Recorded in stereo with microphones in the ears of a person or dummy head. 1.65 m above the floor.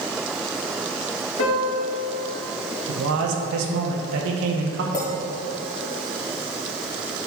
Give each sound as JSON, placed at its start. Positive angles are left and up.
{"t": 1.4, "sound": "a piano", "side_deg": 80, "distance_m": 2.0}
{"t": 2.9, "sound": "a man speaking", "side_deg": -90, "distance_m": 1.0}
{"t": 4.9, "sound": "a clink", "side_deg": 20, "distance_m": 1.6}